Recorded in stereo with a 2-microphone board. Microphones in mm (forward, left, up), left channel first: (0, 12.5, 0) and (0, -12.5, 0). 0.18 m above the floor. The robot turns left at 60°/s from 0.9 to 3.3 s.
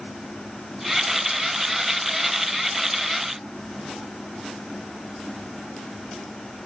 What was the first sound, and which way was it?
Only background noise.